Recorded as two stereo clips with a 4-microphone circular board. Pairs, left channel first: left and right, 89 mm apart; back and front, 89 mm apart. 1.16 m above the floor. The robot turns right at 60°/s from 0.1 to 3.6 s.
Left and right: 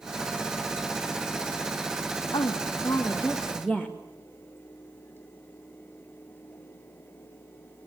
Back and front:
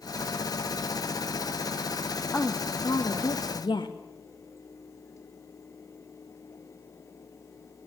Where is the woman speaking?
115° left, 1.7 m; by 4.0 s 170° right, 1.7 m.